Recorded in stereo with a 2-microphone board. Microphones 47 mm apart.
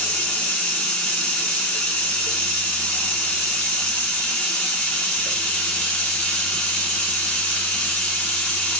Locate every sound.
0.0 s running water: 20° left (ahead or behind), 0.7 m